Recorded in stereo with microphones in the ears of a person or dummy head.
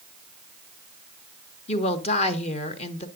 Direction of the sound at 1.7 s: 30° left (ahead or behind).